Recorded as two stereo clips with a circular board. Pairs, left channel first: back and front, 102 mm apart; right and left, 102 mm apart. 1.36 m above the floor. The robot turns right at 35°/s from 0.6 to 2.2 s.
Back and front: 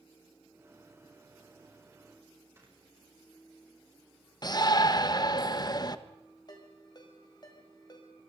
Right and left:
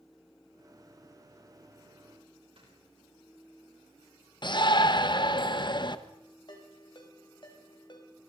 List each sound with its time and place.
2.6 s snoring: 65° left, 8 m
4.4 s a shout: 130° right, 1.3 m
6.5 s a ringtone: 130° right, 5 m